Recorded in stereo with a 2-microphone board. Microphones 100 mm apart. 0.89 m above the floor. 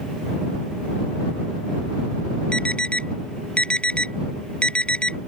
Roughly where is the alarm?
Centre.